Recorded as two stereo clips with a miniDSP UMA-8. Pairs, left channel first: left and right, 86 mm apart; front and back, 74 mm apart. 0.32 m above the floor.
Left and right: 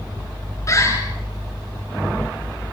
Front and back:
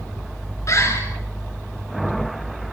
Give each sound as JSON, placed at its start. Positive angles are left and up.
{"t": 0.7, "sound": "a bird", "azimuth_deg": 40, "distance_m": 4.5}